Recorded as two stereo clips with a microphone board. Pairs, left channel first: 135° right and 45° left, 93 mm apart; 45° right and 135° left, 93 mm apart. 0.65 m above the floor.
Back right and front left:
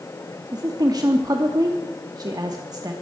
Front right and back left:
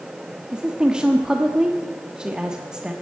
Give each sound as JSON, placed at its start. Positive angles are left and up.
{"t": 0.5, "sound": "a woman speaking", "azimuth_deg": 55, "distance_m": 0.9}